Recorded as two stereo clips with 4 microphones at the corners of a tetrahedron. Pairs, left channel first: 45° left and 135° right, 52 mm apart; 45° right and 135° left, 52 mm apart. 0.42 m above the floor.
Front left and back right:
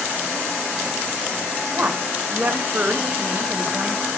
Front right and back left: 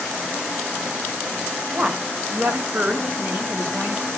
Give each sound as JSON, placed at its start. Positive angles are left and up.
{"t": 1.7, "sound": "a woman speaking", "azimuth_deg": -175, "distance_m": 1.8}